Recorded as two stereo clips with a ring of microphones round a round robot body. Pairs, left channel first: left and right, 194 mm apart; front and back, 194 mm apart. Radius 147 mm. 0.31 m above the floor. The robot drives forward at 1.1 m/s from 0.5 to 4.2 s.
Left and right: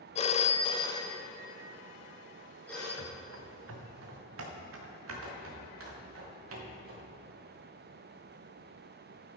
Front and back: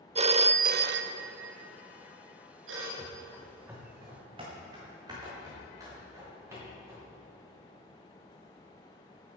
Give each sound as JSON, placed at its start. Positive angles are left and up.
{"t": 0.1, "sound": "a phone ringing", "azimuth_deg": 135, "distance_m": 0.5}
{"t": 3.0, "sound": "running footsteps", "azimuth_deg": -65, "distance_m": 1.4}